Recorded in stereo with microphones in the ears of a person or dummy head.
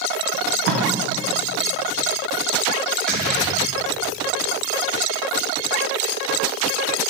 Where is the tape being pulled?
65° right (ahead or behind), 0.8 m.